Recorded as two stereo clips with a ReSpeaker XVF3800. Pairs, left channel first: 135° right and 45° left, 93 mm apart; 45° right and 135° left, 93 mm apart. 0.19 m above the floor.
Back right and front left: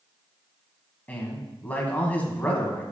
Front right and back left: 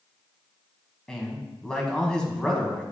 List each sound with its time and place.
1.1 s a man speaking: 110° right, 1.2 m